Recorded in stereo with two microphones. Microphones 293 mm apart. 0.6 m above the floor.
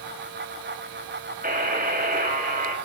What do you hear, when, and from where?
1.4 s a buzzer: 30° right (ahead or behind), 4 m